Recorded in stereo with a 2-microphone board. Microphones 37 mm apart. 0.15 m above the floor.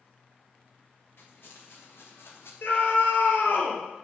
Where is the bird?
I don't hear a bird.